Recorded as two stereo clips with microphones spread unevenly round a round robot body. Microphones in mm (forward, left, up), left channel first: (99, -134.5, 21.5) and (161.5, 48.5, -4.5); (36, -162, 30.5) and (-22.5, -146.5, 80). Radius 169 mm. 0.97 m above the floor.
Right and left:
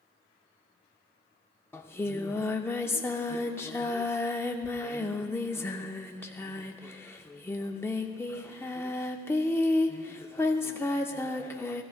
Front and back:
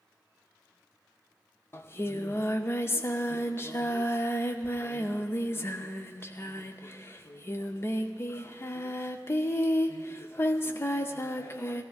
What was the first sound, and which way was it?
Singing, 130° right.